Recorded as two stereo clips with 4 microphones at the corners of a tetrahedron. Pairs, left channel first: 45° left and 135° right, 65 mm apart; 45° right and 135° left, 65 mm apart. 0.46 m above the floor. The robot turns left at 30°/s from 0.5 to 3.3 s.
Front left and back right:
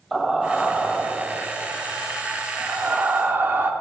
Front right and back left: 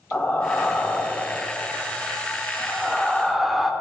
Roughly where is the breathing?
Ahead right.